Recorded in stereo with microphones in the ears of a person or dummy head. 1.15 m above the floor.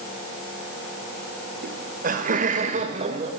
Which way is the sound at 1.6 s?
40° right (ahead or behind).